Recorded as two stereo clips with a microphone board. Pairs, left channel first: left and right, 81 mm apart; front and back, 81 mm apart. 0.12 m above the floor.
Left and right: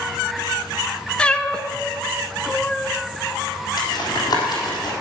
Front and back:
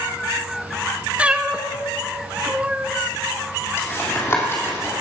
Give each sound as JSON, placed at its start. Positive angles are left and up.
{"t": 1.2, "sound": "a cat meowing", "azimuth_deg": 140, "distance_m": 0.6}
{"t": 3.8, "sound": "tapping", "azimuth_deg": 55, "distance_m": 3.0}